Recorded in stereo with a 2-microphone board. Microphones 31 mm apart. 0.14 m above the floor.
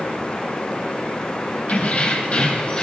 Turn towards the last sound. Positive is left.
turn(degrees=30)  # may be behind; listen again after turning